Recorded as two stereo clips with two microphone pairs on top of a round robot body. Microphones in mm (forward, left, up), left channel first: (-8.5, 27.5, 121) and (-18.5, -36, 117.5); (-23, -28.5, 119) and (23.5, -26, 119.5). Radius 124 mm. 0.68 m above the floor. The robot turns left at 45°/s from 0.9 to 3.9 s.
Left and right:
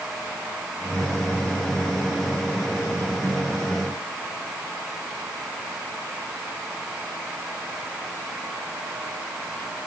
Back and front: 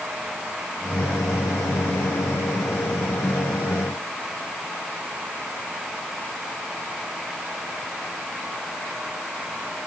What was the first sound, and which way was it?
Only background noise.